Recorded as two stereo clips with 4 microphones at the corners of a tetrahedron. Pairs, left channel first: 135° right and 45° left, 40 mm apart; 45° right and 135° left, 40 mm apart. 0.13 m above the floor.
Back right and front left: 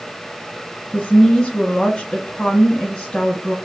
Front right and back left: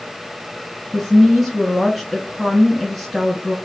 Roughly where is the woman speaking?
Behind right.